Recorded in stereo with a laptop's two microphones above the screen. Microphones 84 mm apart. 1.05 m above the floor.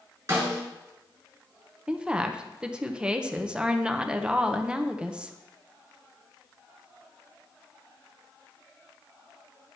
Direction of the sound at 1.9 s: 10° right (ahead or behind).